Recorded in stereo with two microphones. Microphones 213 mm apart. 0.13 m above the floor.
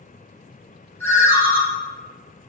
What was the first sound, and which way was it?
A ringtone, 10° left (ahead or behind).